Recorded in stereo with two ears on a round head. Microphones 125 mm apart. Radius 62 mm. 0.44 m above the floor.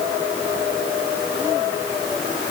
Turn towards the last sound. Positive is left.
No sound to turn to.